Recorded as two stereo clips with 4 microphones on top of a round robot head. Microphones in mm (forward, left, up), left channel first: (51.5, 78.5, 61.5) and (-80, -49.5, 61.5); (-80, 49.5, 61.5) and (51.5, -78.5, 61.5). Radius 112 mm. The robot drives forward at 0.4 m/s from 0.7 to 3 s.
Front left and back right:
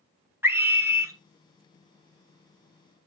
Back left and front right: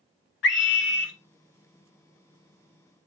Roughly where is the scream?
Behind left.